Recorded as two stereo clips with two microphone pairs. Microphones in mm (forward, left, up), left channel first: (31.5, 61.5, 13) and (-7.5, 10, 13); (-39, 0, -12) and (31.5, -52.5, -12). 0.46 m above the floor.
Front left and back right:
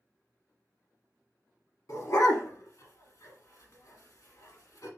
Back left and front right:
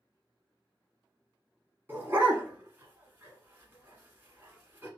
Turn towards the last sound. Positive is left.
turn(degrees=25)